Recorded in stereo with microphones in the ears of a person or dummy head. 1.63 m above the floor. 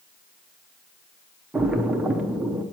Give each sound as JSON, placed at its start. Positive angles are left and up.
{"t": 1.5, "sound": "a splash", "side_deg": -10, "distance_m": 0.6}